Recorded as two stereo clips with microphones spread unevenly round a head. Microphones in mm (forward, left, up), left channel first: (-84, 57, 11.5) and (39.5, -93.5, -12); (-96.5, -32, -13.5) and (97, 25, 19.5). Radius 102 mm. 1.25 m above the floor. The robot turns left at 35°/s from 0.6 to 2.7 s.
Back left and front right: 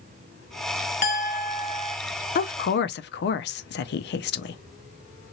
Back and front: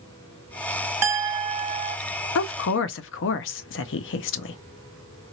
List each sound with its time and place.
1.0 s a clink: 85° left, 0.9 m; by 2.0 s 55° left, 0.9 m
2.4 s a woman speaking: straight behind, 0.5 m; by 4.6 s 170° left, 0.5 m